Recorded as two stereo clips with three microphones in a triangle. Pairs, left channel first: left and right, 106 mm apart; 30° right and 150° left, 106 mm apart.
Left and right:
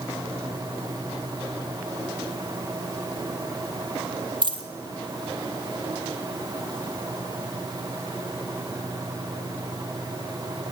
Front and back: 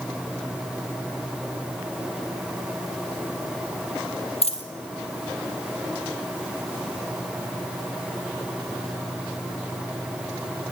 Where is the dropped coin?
50° right, 1.6 m.